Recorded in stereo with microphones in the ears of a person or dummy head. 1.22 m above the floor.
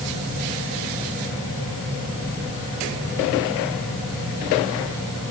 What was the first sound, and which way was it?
Only background noise.